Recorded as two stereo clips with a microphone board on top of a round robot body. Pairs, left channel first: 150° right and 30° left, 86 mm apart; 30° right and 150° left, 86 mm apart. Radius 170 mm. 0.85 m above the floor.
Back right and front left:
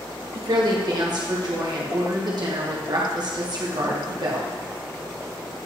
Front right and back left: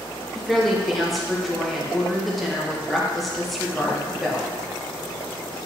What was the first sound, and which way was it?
A woman speaking, 60° left.